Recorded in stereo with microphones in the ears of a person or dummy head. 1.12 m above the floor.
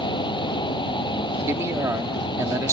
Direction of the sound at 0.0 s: 25° left (ahead or behind).